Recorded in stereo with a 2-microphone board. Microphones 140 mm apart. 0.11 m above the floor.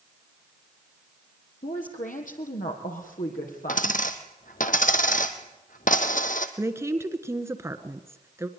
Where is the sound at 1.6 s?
65° left (ahead or behind), 3.5 m; by 4.0 s 75° left (ahead or behind), 5.5 m.